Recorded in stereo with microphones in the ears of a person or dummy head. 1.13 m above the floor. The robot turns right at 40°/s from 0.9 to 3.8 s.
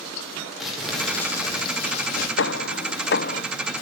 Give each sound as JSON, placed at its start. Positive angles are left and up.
{"t": 0.6, "sound": "crumpling", "azimuth_deg": 0, "distance_m": 4.5}
{"t": 2.4, "sound": "hammering", "azimuth_deg": 85, "distance_m": 0.6}